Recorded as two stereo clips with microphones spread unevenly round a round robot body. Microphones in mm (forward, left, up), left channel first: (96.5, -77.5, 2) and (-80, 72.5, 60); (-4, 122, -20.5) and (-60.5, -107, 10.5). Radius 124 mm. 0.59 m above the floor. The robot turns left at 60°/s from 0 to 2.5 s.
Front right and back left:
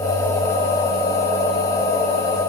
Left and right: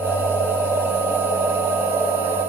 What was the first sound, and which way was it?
Only background noise.